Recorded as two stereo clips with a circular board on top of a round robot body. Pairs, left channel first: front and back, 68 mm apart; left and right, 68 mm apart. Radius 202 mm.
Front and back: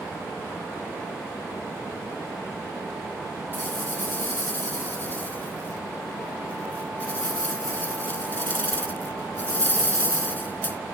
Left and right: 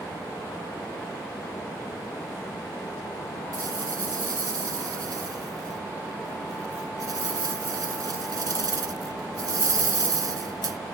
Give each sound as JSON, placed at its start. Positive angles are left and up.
{"t": 3.5, "sound": "a rattle", "azimuth_deg": -60}